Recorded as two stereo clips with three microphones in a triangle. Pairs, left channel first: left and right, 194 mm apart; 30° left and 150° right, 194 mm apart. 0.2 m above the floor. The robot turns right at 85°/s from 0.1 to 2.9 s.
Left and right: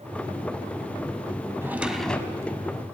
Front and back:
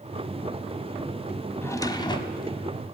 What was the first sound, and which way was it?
A drawer, 30° right.